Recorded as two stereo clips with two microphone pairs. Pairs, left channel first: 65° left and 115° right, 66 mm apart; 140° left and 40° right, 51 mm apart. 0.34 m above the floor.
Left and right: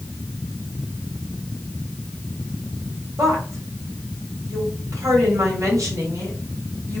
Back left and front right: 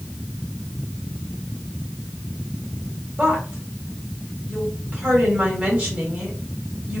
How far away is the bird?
I don't hear a bird.